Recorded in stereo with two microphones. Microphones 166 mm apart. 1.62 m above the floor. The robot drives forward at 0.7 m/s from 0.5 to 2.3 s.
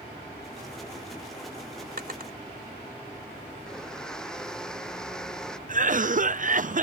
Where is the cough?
55° right (ahead or behind).